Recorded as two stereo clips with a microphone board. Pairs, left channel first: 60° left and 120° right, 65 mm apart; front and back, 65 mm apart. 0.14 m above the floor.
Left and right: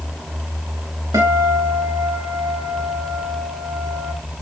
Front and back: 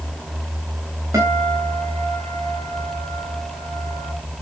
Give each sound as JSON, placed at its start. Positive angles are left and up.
{"t": 1.1, "sound": "a guitar", "azimuth_deg": -140, "distance_m": 6.0}